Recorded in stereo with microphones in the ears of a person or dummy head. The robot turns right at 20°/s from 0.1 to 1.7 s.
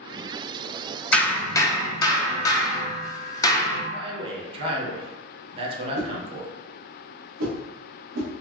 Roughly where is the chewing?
I don't hear chewing.